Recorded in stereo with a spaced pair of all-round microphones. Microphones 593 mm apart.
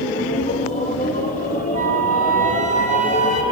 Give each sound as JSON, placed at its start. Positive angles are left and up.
{"t": 0.0, "sound": "a machine running", "side_deg": 15, "distance_m": 2.5}
{"t": 1.7, "sound": "a flute", "side_deg": 75, "distance_m": 2.5}